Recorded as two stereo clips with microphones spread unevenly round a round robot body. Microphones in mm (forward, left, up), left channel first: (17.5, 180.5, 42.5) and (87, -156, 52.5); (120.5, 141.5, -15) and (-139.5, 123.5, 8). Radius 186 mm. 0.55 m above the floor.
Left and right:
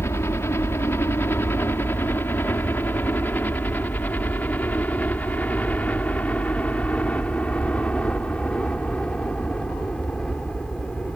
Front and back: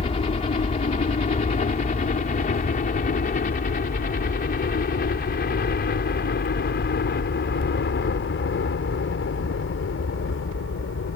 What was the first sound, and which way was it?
A helicopter, 30° left.